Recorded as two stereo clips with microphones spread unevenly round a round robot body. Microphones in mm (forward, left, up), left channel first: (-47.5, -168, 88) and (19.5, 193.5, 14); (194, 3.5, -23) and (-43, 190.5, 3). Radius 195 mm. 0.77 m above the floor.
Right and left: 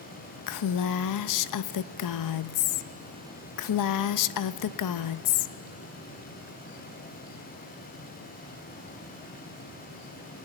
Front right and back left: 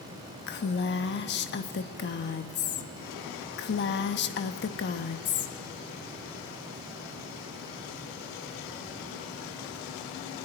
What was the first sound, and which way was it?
A woman speaking, 70° right.